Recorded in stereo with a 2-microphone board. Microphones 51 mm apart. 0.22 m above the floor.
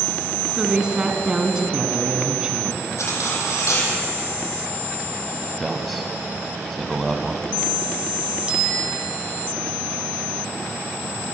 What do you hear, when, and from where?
0.6 s a woman speaking: 15° right (ahead or behind), 2 m
3.0 s cutlery clinking: 70° left (ahead or behind), 5.5 m
5.6 s a man speaking: centre (ahead or behind), 1.2 m
8.5 s a bicycle bell: 20° right (ahead or behind), 6 m